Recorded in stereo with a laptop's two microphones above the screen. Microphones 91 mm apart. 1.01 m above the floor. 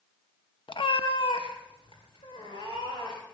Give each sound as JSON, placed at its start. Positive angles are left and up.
{"t": 0.7, "sound": "a cat meowing", "side_deg": 65, "distance_m": 0.5}